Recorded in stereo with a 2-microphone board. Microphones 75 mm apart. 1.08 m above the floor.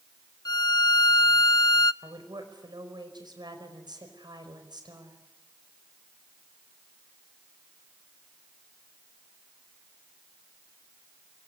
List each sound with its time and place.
0.5 s a violin: 65° left (ahead or behind), 0.6 m
2.0 s a woman speaking: 75° right (ahead or behind), 5 m